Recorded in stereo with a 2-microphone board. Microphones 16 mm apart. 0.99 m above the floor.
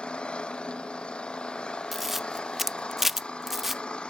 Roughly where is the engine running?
Left.